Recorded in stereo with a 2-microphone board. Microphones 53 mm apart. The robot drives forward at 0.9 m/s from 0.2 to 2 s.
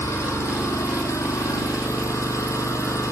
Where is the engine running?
60° left (ahead or behind), 3 m; by 3.1 s 80° left, 2.5 m.